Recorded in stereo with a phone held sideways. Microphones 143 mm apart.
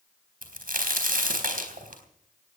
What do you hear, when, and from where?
0.4 s a crack: 80° right, 4 m